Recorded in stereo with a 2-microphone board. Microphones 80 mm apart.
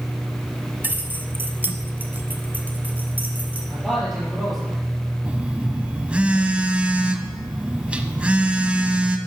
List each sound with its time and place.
0.8 s keys jangling: 25° right (ahead or behind), 0.9 m; by 3.6 s 20° right (ahead or behind), 2.5 m
3.7 s a man speaking: centre (ahead or behind), 5.5 m
5.2 s a phone buzzing: 15° right (ahead or behind), 1.0 m